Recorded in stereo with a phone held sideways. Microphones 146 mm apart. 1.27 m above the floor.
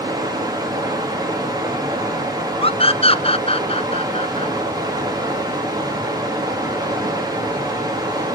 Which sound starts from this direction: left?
A scream, at 2.6 s.